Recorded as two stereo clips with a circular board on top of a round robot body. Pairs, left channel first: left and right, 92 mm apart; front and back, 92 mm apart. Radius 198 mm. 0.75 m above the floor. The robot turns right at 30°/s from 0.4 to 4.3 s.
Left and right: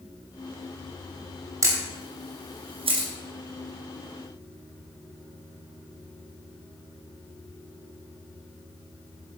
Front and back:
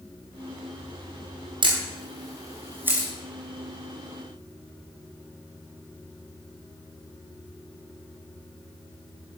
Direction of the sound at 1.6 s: 150° right.